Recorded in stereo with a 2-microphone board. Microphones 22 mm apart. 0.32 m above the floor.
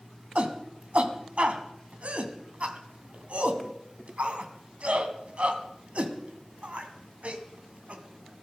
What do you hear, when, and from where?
0.3 s a shout: 55° right (ahead or behind), 2 m